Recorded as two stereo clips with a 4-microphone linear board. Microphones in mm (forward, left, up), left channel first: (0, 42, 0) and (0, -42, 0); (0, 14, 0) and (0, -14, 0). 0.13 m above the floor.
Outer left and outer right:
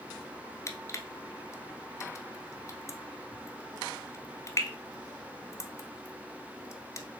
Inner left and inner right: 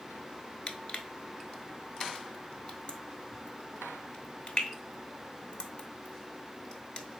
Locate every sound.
0.7 s crushing: 35° left (ahead or behind), 0.7 m